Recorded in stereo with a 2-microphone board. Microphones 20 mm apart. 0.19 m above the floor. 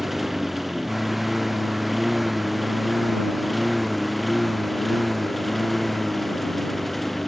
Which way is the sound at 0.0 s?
15° right (ahead or behind).